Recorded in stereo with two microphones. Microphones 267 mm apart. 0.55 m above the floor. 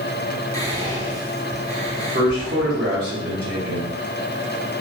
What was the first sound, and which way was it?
Whispering, 10° left (ahead or behind).